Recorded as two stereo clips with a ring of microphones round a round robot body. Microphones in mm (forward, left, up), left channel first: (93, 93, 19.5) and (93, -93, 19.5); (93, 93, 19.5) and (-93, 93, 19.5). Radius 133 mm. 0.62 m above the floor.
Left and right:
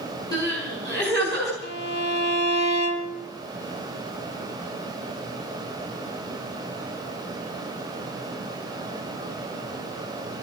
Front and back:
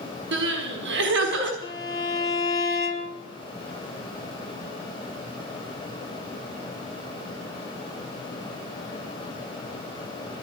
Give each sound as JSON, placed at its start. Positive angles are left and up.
{"t": 0.3, "sound": "crying", "azimuth_deg": 165, "distance_m": 4.5}
{"t": 1.6, "sound": "a violin", "azimuth_deg": 70, "distance_m": 5.5}